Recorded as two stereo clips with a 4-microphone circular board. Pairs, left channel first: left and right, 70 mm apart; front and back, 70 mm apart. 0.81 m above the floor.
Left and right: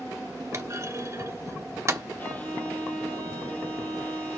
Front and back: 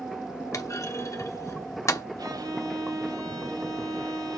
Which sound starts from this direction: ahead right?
A clunk, at 0.5 s.